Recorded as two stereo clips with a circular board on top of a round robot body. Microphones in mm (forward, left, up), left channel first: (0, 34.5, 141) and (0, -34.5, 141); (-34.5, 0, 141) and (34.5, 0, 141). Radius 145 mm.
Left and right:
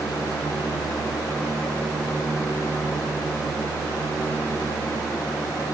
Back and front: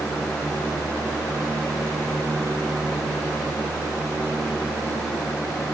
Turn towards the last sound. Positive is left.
No sound to turn to.